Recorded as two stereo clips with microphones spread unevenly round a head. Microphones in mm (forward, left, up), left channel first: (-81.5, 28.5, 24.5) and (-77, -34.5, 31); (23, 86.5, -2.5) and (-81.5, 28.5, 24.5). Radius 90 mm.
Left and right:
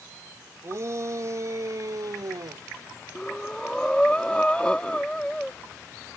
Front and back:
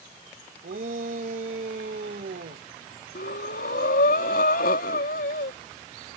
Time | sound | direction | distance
0.6 | a shout | 125° right | ?
3.1 | breathing | 10° left | ?